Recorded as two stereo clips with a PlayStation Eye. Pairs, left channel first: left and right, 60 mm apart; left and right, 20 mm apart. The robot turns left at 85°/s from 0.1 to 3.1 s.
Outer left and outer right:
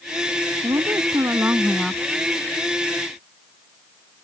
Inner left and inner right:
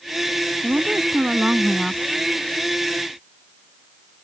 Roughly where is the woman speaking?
Right.